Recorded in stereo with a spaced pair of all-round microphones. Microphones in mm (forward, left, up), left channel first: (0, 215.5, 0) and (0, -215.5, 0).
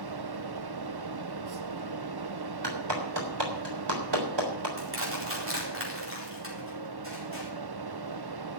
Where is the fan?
65° right (ahead or behind), 0.7 m.